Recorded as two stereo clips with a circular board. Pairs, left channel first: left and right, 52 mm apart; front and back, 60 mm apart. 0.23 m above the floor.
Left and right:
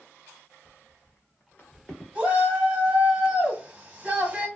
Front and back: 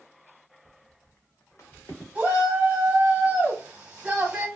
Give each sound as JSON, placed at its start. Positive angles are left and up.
{"t": 0.7, "sound": "footsteps", "azimuth_deg": 110, "distance_m": 0.8}
{"t": 2.1, "sound": "a shout", "azimuth_deg": -130, "distance_m": 1.1}